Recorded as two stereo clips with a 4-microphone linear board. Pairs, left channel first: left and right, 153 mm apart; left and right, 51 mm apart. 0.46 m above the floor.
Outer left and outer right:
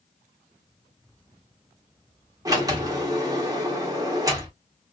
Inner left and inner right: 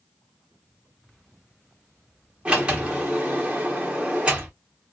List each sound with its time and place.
2.5 s a sliding door: 25° right (ahead or behind), 1.2 m